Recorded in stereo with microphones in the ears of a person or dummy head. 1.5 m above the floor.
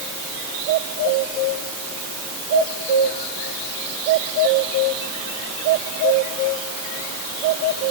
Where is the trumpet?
I don't hear a trumpet.